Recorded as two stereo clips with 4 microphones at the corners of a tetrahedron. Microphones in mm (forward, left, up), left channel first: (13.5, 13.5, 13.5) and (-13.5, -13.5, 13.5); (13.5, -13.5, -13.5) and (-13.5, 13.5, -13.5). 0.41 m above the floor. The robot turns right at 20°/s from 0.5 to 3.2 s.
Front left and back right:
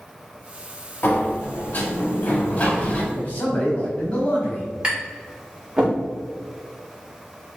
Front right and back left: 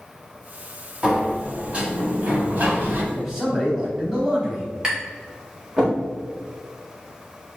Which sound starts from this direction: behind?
Tapping, at 4.8 s.